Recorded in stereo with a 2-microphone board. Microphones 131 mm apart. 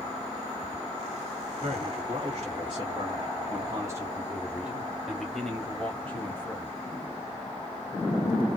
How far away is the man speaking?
About 2.5 m.